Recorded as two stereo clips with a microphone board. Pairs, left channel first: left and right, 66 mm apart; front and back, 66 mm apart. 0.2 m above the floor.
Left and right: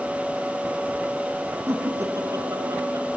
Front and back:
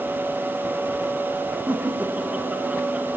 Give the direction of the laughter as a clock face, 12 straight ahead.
4 o'clock.